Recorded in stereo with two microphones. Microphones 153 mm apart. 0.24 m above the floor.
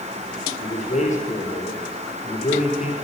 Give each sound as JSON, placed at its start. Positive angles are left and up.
{"t": 0.6, "sound": "a man speaking", "side_deg": 45, "distance_m": 4.0}